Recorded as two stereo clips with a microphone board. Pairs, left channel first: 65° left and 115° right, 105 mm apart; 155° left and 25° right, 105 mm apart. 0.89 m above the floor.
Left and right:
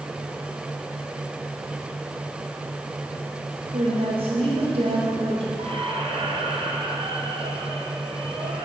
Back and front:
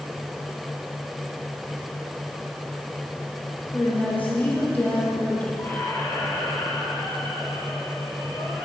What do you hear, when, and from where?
3.7 s a woman speaking: 130° right, 3.5 m
5.6 s a squeak: 135° right, 2.5 m